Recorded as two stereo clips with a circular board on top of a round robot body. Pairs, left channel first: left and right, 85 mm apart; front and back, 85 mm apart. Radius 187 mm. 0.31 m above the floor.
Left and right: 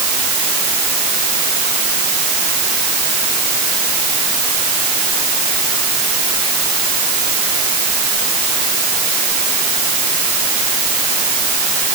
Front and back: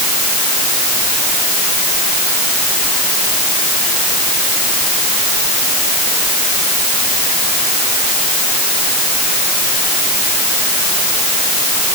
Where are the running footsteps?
No running footsteps in this recording.